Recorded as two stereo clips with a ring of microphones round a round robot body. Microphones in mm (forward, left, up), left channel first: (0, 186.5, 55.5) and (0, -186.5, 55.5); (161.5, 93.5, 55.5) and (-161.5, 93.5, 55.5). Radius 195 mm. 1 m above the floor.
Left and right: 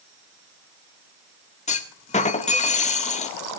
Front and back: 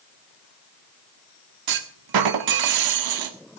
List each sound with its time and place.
1.7 s a clunk: 165° left, 1.8 m